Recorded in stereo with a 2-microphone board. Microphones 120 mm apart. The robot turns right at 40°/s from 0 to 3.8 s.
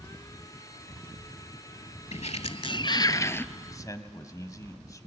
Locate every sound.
2.1 s a sliding door: 110° left, 0.6 m; by 3.5 s 165° left, 0.6 m
3.5 s a man speaking: 25° left (ahead or behind), 1.4 m; by 5.1 s 30° left (ahead or behind), 1.4 m